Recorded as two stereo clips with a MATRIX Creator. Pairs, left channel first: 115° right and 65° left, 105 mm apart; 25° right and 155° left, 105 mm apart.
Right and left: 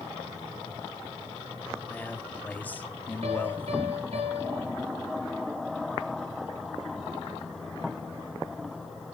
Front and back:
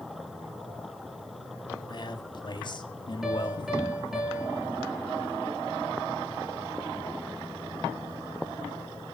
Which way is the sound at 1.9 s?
45° right.